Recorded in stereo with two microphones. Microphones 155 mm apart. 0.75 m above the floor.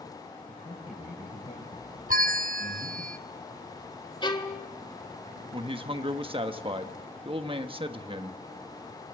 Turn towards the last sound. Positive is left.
turn(degrees=-35)  # may be behind; listen again after turning